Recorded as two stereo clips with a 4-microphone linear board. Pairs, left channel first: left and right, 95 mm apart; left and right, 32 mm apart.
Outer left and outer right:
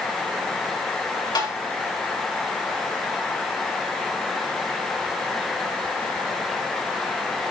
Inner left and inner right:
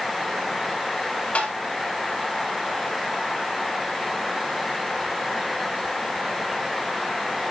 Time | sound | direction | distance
1.4 | tapping | 50° left (ahead or behind) | 4.5 m